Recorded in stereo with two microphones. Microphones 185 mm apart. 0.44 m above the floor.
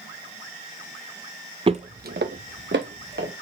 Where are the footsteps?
30° right (ahead or behind), 0.6 m; by 3.3 s 80° right, 1.9 m.